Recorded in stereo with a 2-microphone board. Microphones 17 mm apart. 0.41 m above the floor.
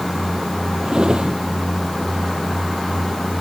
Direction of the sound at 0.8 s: 55° right (ahead or behind).